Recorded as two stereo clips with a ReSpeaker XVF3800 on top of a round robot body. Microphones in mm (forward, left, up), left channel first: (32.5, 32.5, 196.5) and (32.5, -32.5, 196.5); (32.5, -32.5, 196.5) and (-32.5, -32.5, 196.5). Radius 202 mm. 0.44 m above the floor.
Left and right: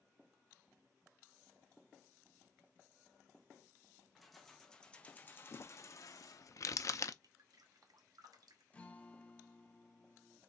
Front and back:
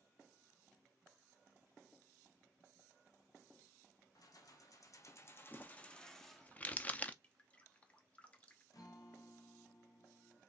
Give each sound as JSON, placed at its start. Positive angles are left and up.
{"t": 4.2, "sound": "keys jangling", "azimuth_deg": 0, "distance_m": 1.3}
{"t": 5.5, "sound": "crumpling", "azimuth_deg": 65, "distance_m": 0.6}
{"t": 7.2, "sound": "dripping", "azimuth_deg": -70, "distance_m": 0.9}
{"t": 8.7, "sound": "a guitar", "azimuth_deg": 20, "distance_m": 0.9}